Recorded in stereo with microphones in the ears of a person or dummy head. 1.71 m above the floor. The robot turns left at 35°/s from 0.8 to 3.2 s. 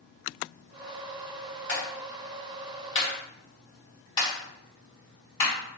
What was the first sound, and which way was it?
A clap, 70° left (ahead or behind).